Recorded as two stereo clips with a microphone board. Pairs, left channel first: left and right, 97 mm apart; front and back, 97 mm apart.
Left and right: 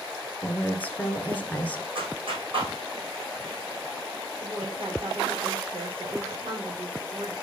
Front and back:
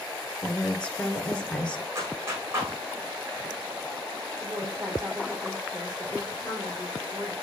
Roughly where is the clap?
Behind right.